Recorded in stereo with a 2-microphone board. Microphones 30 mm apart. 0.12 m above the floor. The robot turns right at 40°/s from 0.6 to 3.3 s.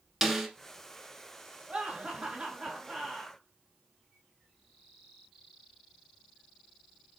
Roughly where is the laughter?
Behind right.